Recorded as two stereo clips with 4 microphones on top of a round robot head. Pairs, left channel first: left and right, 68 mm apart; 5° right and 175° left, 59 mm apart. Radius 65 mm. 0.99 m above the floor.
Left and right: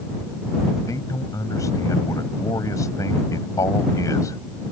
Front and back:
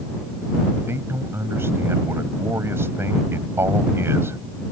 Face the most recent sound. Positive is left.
turn(degrees=130)